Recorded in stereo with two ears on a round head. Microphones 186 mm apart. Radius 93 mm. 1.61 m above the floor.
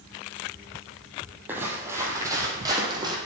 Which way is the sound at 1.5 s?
10° right (ahead or behind).